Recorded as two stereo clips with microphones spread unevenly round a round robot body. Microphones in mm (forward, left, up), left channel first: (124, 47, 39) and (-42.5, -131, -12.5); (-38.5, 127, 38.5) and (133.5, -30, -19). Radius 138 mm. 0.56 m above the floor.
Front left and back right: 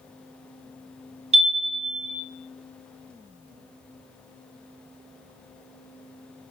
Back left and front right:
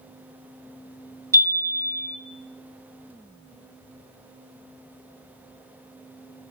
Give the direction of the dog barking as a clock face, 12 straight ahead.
I don't hear a dog barking.